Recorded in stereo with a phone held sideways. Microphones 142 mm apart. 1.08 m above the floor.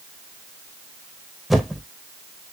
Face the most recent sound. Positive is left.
turn(degrees=0)  # may be behind; listen again after turning